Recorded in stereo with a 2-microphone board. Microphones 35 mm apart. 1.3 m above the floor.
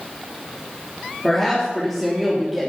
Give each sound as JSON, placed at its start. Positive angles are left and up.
{"t": 1.2, "sound": "a woman speaking", "side_deg": 5, "distance_m": 3.0}